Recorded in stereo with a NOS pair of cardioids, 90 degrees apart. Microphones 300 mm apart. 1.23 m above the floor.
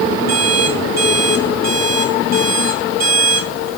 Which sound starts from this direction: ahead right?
An alarm clock, at 0.3 s.